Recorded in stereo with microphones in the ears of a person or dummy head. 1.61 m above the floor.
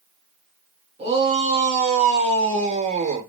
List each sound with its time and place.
1.0 s a shout: 30° right (ahead or behind), 3.5 m; by 3.3 s 35° right (ahead or behind), 1.3 m